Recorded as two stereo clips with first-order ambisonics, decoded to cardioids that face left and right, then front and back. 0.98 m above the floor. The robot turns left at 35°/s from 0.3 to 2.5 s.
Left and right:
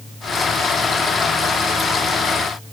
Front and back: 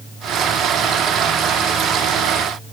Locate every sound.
Only background noise.